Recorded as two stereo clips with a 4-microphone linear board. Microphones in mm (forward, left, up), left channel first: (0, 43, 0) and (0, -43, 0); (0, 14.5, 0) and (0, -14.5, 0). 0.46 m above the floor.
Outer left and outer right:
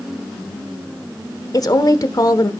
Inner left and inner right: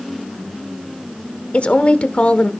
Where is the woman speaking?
45° left (ahead or behind), 1.1 m.